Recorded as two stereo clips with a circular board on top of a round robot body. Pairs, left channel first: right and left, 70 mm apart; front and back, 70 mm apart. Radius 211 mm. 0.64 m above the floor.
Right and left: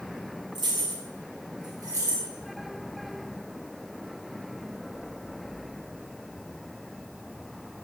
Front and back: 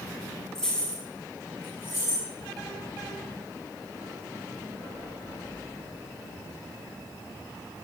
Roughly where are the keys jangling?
Left.